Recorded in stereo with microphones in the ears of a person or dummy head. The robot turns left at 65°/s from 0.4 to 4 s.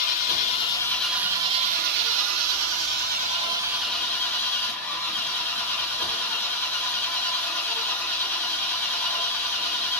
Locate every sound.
0.0 s an engine running: 35° left, 0.8 m; by 10.0 s 160° left, 0.8 m